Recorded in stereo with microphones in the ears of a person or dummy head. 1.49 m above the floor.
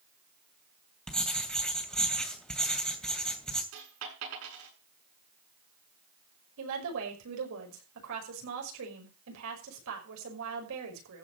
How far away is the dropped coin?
About 7.5 m.